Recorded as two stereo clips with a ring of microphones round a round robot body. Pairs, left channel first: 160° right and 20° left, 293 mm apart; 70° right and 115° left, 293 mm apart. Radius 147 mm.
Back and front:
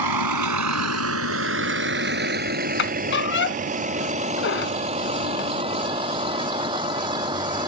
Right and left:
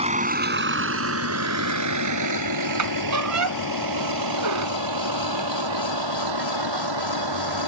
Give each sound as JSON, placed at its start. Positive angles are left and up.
{"t": 0.0, "sound": "a vehicle", "azimuth_deg": 40}
{"t": 2.8, "sound": "a squeak", "azimuth_deg": 150}